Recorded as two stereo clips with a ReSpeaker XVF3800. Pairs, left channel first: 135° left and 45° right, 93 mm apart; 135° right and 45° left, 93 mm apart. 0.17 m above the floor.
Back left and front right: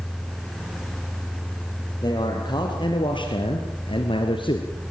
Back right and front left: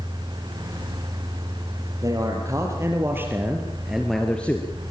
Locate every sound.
2.0 s a man speaking: 95° left, 4.5 m; by 4.7 s 160° left, 2.5 m